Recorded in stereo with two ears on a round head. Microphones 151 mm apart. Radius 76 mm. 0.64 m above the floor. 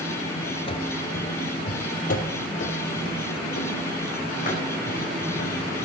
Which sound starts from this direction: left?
Running footsteps, at 0.7 s.